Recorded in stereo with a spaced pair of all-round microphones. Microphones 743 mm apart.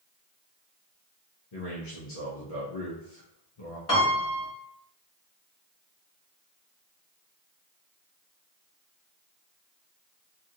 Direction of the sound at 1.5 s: 50° left (ahead or behind).